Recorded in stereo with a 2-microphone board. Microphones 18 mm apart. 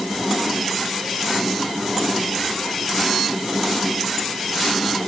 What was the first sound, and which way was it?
Only background noise.